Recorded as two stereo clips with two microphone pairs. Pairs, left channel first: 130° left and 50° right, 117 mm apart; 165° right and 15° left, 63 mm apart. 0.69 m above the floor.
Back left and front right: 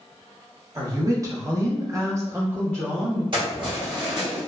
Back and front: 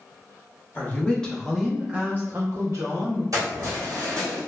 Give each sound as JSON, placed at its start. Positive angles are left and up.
{"t": 0.8, "sound": "a woman speaking", "azimuth_deg": -105, "distance_m": 0.9}
{"t": 3.3, "sound": "keys jangling", "azimuth_deg": -5, "distance_m": 1.2}